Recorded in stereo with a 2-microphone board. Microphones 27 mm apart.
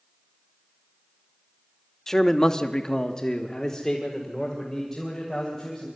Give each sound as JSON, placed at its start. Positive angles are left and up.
{"t": 2.1, "sound": "a man speaking", "side_deg": 15, "distance_m": 1.1}